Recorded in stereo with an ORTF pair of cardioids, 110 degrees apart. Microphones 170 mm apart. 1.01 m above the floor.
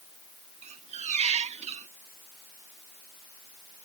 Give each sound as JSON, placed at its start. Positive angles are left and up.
{"t": 0.6, "sound": "a squeak", "azimuth_deg": -40}